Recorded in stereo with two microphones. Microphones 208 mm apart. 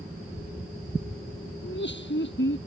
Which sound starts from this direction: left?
Laughter, at 1.6 s.